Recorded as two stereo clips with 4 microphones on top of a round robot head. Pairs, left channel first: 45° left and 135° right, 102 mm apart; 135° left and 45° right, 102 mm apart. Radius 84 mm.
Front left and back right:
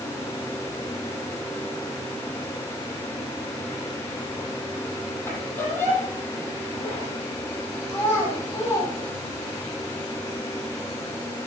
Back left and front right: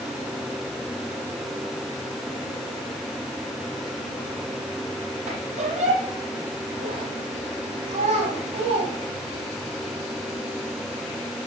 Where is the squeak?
25° right, 7.5 m.